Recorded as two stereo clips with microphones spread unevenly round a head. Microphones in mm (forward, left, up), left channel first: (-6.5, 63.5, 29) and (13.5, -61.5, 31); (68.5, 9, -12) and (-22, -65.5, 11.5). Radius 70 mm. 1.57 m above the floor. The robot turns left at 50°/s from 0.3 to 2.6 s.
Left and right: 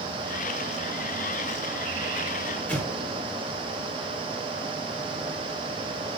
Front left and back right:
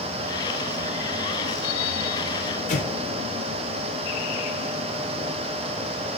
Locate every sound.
2.7 s an explosion: 15° left, 3.5 m